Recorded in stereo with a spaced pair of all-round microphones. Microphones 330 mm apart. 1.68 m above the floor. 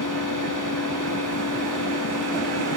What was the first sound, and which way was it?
A machine running, 70° left (ahead or behind).